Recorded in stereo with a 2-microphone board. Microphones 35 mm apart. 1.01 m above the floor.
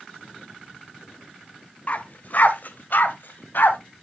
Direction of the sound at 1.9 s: 40° left (ahead or behind).